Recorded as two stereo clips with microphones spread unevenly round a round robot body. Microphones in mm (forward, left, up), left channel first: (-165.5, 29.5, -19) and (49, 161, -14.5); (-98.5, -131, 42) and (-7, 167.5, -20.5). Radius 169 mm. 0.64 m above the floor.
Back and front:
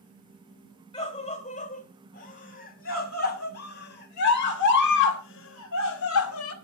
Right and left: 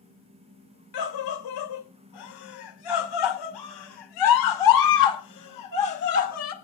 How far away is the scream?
About 3.5 m.